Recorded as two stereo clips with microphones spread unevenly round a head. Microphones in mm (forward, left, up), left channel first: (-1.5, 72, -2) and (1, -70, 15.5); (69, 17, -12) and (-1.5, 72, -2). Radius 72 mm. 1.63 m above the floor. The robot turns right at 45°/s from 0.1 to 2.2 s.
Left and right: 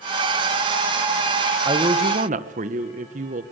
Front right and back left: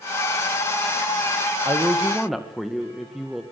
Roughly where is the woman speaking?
Behind right.